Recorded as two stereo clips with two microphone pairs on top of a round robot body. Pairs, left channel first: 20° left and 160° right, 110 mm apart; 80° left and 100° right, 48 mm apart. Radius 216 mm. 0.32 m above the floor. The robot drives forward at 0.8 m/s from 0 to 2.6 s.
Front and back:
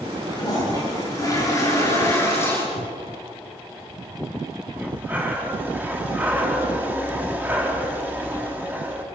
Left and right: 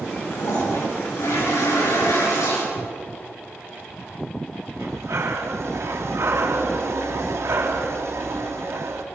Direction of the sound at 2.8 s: Straight ahead.